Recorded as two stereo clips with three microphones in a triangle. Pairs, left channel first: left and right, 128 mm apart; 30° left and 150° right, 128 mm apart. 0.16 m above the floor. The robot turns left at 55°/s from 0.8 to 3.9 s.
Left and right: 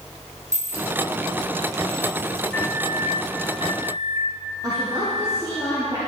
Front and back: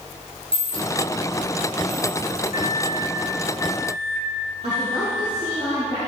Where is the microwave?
160° left, 2 m; by 5.4 s 85° left, 2 m.